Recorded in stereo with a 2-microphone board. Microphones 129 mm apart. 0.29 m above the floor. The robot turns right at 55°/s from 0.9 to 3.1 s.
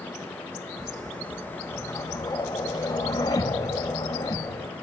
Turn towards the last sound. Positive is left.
turn(degrees=115)